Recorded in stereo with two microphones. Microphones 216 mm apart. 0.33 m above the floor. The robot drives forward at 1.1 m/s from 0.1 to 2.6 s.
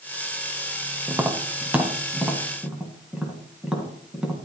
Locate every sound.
1.1 s tapping: 10° right (ahead or behind), 0.9 m; by 4.4 s 5° right (ahead or behind), 2.5 m